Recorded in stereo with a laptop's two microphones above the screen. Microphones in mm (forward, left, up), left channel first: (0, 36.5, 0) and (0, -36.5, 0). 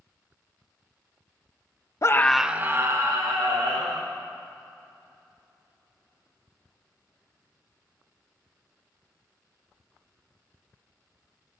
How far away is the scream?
About 0.7 m.